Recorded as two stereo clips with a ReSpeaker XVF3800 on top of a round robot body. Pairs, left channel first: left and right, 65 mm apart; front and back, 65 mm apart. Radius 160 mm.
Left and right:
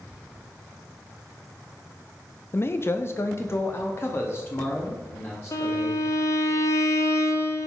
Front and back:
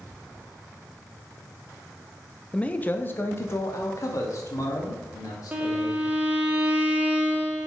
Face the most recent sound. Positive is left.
turn(degrees=115)